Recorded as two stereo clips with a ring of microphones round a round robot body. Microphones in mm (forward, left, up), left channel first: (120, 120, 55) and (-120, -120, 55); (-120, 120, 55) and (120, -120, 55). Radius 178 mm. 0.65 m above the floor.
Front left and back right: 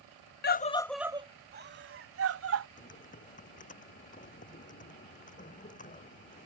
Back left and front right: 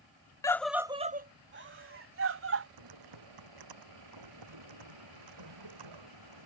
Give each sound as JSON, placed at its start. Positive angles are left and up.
{"t": 0.4, "sound": "a scream", "azimuth_deg": 65}
{"t": 2.8, "sound": "typing on a keyboard", "azimuth_deg": -25}